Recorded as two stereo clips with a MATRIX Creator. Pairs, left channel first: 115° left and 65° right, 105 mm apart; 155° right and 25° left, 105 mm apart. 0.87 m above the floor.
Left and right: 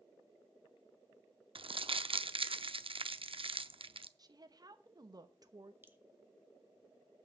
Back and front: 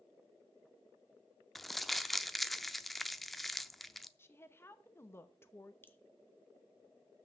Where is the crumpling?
70° right, 0.5 m.